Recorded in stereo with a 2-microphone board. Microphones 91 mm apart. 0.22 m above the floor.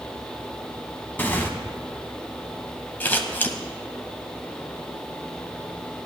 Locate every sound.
1.2 s tearing paper: 20° left (ahead or behind), 1.3 m
3.0 s scissors: 20° left (ahead or behind), 1.1 m